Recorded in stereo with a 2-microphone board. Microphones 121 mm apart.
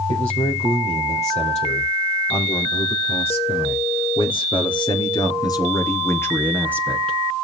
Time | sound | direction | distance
0.1 | a man speaking | 70° left (ahead or behind) | 5 m